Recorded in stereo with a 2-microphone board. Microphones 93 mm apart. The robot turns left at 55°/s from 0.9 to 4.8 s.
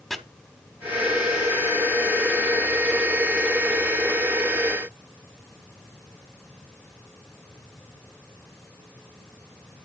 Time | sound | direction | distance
0.1 | chopping | 5° left (ahead or behind) | 1.2 m